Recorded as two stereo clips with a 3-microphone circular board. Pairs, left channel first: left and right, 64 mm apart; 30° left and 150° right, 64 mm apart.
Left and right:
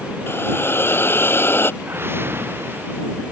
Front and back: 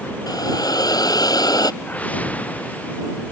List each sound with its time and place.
0.3 s a hiss: 35° left
1.8 s a whoosh: 35° right